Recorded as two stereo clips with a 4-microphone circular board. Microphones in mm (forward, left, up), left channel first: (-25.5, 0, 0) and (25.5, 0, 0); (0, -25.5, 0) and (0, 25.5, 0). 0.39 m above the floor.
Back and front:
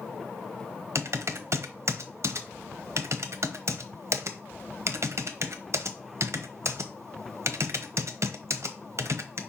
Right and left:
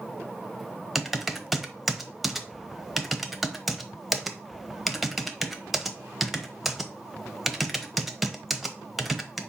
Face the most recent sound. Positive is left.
turn(degrees=5)